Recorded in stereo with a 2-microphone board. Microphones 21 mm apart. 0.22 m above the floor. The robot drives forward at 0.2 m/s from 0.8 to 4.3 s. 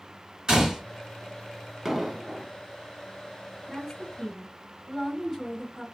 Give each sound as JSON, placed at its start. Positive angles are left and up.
{"t": 0.5, "sound": "a gunshot", "side_deg": -35, "distance_m": 1.9}
{"t": 1.9, "sound": "an explosion", "side_deg": -15, "distance_m": 0.6}
{"t": 3.7, "sound": "a woman speaking", "side_deg": -20, "distance_m": 1.8}